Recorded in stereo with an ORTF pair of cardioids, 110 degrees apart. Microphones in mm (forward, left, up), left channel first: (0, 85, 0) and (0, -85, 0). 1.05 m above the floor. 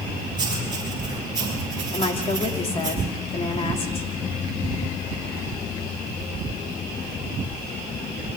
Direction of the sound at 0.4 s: 25° right.